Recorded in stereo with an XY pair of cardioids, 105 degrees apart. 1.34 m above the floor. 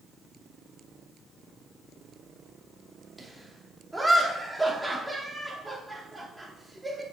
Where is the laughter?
Straight ahead, 3 m.